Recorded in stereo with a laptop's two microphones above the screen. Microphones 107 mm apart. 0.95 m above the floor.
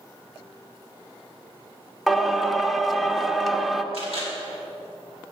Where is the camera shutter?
70° left (ahead or behind), 3.5 m.